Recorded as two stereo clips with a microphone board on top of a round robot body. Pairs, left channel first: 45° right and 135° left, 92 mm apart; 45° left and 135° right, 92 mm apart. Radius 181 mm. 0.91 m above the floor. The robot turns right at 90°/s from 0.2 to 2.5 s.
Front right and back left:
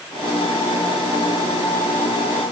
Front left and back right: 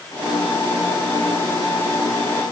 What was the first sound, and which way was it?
Only background noise.